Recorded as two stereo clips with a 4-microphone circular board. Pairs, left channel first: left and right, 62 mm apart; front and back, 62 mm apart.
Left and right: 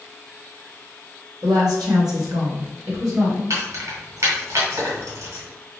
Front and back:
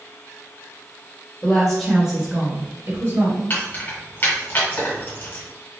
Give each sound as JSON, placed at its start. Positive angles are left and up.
{"t": 1.4, "sound": "a woman speaking", "azimuth_deg": -70, "distance_m": 0.9}
{"t": 3.5, "sound": "keys jangling", "azimuth_deg": -55, "distance_m": 1.3}